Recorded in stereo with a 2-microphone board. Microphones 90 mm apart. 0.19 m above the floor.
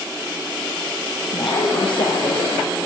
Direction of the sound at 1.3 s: 70° left (ahead or behind).